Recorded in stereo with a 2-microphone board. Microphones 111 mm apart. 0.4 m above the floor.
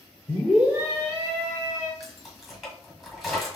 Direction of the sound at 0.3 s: 15° left (ahead or behind).